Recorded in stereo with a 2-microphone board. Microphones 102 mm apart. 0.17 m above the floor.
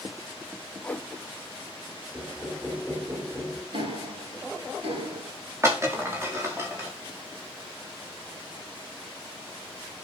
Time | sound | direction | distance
0.8 | a whoosh | 15° left (ahead or behind) | 0.7 m
2.1 | knocking | 15° right (ahead or behind) | 6.5 m
3.7 | ticking | 60° right (ahead or behind) | 6 m
5.6 | breaking glass | 25° right (ahead or behind) | 7 m